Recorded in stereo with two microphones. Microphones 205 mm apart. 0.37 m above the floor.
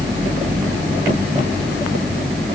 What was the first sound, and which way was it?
Only background noise.